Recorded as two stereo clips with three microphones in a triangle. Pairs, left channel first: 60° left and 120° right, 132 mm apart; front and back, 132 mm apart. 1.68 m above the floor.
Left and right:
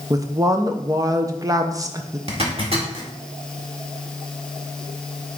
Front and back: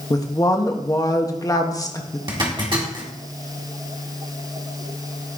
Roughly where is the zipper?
Behind right.